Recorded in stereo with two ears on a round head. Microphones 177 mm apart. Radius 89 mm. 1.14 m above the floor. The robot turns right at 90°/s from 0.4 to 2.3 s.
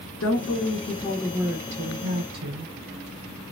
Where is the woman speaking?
100° left, 0.7 m; by 2.7 s 90° right, 0.7 m.